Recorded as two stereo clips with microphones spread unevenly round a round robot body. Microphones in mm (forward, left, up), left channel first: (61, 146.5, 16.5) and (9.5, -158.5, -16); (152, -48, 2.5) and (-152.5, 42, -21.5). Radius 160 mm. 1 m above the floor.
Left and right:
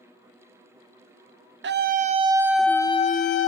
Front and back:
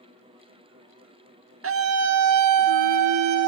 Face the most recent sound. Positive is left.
turn(degrees=130)